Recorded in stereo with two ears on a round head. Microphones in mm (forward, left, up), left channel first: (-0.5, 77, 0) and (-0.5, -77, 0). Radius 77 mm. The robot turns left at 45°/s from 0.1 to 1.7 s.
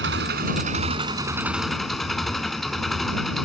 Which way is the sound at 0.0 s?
110° right.